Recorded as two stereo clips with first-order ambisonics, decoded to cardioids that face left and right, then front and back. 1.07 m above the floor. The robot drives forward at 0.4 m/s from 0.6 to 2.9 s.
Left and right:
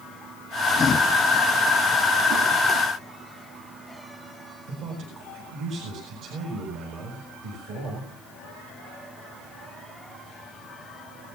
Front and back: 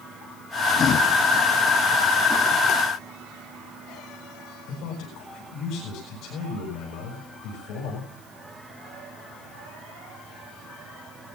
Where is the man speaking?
45° right, 8.5 m.